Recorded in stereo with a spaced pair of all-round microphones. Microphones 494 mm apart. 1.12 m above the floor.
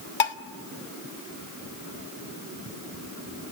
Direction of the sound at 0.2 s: 65° left (ahead or behind).